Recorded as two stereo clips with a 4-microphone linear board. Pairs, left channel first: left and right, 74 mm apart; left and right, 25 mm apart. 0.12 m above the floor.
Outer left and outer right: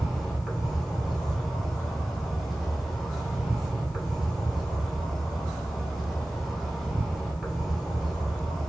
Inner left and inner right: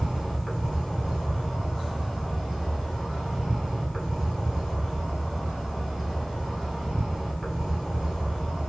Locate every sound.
0.0 s an insect: centre (ahead or behind), 1.0 m